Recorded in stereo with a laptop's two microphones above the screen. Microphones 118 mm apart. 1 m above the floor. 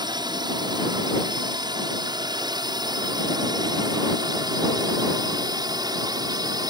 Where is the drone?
35° right (ahead or behind).